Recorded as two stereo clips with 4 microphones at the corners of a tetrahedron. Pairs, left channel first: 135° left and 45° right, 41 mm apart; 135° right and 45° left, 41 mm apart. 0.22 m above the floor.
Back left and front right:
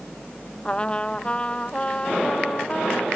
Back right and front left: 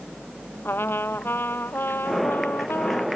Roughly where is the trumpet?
Behind.